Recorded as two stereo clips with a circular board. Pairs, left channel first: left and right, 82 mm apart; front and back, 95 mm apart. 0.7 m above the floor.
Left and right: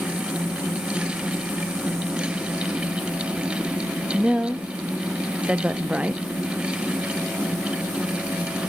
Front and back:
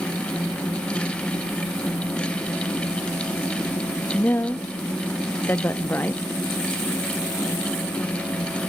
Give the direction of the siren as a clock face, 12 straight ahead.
No siren in this recording.